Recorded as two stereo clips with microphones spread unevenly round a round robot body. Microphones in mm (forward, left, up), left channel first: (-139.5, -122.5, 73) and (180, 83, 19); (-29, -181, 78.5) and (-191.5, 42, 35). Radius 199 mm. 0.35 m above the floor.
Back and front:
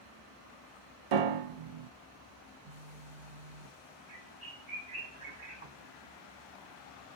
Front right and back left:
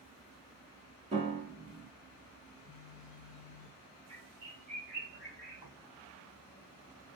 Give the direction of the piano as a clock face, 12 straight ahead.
10 o'clock.